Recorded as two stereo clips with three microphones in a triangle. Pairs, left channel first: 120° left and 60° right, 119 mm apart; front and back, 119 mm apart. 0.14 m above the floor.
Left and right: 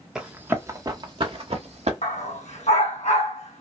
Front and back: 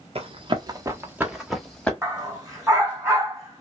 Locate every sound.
0.1 s running footsteps: 145° right, 0.9 m; by 1.9 s 85° right, 1.2 m
2.0 s a dog barking: 115° left, 1.4 m